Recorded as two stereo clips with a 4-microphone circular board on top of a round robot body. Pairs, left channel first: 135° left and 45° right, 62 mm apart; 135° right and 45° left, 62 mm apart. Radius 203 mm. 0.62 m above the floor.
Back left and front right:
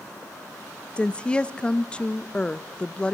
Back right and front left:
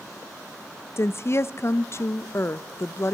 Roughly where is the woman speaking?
Behind.